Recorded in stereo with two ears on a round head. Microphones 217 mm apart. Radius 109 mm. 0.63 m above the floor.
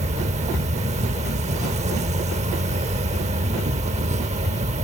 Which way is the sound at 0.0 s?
25° right (ahead or behind).